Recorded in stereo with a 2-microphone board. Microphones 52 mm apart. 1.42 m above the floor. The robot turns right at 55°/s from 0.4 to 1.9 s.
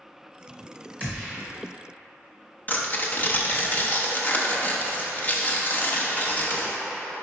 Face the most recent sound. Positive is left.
turn(degrees=35)  # may be behind; listen again after turning